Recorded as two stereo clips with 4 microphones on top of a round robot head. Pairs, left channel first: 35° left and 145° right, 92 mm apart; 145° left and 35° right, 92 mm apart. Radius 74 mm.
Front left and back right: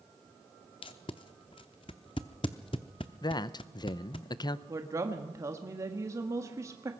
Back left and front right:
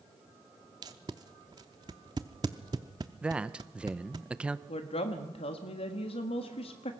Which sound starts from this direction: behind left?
A woman speaking, at 4.7 s.